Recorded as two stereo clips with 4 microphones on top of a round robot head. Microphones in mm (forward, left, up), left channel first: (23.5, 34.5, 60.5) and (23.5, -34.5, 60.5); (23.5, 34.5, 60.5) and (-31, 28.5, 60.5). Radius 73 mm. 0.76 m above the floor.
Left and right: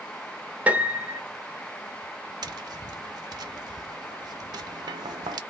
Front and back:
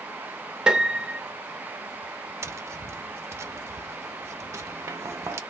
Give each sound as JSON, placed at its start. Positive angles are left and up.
{"t": 0.7, "sound": "a piano", "azimuth_deg": -120, "distance_m": 0.9}
{"t": 2.4, "sound": "tapping", "azimuth_deg": -125, "distance_m": 0.5}